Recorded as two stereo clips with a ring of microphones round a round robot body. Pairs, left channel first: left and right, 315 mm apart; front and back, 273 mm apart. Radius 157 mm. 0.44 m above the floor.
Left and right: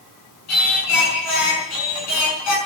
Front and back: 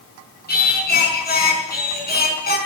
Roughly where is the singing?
Ahead left.